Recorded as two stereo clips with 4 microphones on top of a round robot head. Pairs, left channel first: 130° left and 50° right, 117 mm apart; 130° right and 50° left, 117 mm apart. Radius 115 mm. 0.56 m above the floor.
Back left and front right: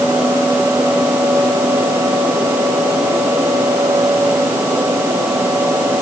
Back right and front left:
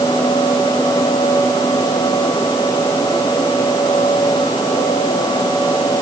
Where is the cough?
I don't hear a cough.